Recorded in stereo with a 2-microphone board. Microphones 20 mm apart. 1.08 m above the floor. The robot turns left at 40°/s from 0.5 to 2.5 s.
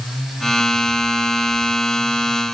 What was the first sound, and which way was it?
Only background noise.